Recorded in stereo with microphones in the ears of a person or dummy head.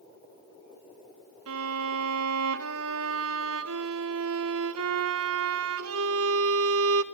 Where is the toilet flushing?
No toilet flushing in this recording.